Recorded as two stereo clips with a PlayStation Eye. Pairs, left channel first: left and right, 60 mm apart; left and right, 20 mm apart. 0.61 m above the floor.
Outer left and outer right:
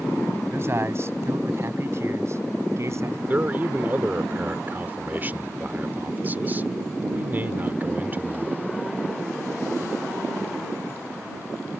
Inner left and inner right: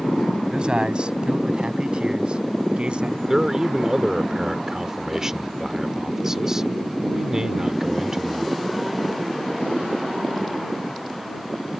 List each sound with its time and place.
0.5 s a man speaking: 45° right (ahead or behind); by 3.2 s 50° right (ahead or behind)
3.3 s a man speaking: 30° right (ahead or behind)